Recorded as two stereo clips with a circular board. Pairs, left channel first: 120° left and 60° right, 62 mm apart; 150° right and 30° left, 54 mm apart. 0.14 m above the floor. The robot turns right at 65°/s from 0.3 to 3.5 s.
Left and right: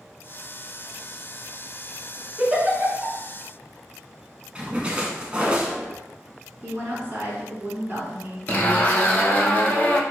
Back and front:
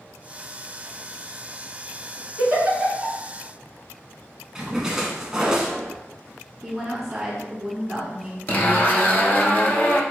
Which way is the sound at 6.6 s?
55° right.